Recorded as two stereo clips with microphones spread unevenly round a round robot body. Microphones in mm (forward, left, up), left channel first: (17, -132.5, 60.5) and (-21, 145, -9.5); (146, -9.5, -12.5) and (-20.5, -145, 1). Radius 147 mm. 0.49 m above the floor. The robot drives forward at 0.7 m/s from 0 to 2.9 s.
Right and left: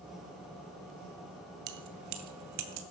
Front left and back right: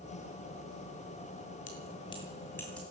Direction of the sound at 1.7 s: 100° left.